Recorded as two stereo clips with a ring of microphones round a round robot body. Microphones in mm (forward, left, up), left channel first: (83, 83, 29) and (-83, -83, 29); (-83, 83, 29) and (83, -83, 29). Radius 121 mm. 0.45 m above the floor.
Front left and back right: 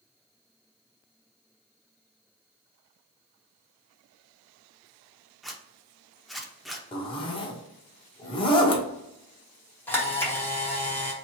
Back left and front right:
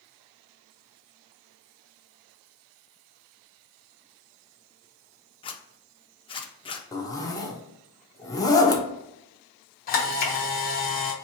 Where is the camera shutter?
120° left, 1.0 m.